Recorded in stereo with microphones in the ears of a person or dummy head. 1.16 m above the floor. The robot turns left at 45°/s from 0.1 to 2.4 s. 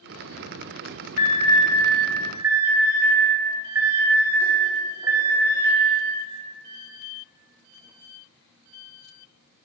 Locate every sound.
1.2 s an alarm: 45° left (ahead or behind), 4.5 m; by 5.8 s 10° right (ahead or behind), 4.5 m